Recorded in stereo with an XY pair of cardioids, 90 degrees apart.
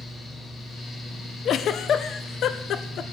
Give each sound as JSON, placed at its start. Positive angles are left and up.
{"t": 0.0, "sound": "a fan", "azimuth_deg": 60, "distance_m": 4.0}
{"t": 1.4, "sound": "a giggle", "azimuth_deg": 65, "distance_m": 0.6}